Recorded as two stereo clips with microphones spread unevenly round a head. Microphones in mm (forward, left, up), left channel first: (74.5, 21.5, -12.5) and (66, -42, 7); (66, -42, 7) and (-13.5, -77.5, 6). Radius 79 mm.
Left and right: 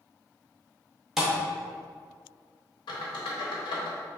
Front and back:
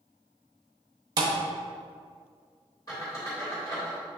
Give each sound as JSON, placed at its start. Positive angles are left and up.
{"t": 1.2, "sound": "a thud", "azimuth_deg": -165, "distance_m": 0.7}
{"t": 2.9, "sound": "a squeak", "azimuth_deg": 90, "distance_m": 1.0}